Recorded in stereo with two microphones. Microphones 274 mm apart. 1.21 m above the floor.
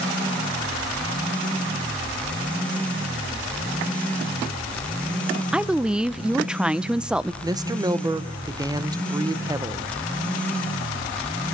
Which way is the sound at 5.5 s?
5° right (ahead or behind).